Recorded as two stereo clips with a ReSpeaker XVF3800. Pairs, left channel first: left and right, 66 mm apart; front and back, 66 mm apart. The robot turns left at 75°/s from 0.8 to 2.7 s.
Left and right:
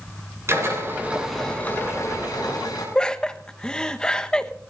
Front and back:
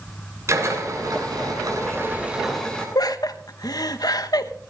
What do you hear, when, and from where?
0.5 s a drill: 140° right, 6.5 m; by 2.9 s 80° left, 6.5 m
3.0 s laughter: 10° left, 1.0 m